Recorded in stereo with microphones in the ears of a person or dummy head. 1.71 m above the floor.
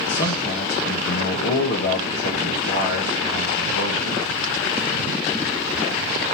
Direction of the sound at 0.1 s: 60° left (ahead or behind).